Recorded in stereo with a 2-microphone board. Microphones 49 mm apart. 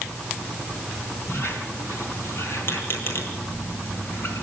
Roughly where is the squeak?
Left.